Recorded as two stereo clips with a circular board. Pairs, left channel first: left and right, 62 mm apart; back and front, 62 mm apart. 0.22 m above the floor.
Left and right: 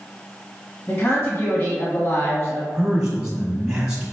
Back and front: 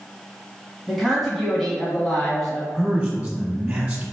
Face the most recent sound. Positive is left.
turn(degrees=-30)